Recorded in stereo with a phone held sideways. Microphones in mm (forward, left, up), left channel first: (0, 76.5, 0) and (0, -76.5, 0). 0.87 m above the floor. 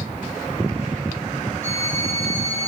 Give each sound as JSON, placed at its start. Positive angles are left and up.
{"t": 1.6, "sound": "a violin", "side_deg": 50, "distance_m": 4.0}